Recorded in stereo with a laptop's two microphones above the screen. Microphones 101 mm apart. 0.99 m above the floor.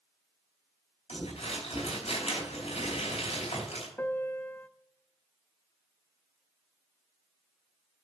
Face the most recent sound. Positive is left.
turn(degrees=20)  # may be behind; listen again after turning